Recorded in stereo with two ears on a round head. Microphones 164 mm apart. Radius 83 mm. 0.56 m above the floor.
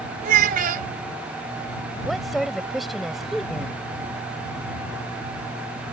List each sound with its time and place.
0.2 s a child speaking: 50° right (ahead or behind)
2.0 s a woman speaking: centre (ahead or behind)